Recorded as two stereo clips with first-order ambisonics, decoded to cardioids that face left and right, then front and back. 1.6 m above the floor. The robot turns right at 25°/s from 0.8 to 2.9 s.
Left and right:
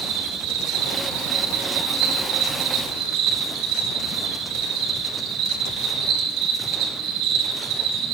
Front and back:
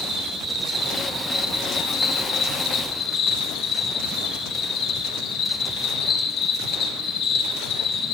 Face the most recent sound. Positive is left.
turn(degrees=-50)